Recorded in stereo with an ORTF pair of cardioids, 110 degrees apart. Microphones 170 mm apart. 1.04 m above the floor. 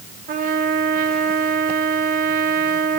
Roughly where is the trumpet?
Ahead right.